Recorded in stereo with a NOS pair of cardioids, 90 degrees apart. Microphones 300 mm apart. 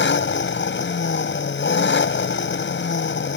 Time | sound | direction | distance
0.0 | an engine running | 40° left | ?